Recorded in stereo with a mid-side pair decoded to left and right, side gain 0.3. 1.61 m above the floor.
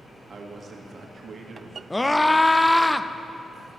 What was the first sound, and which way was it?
A man speaking, 60° right.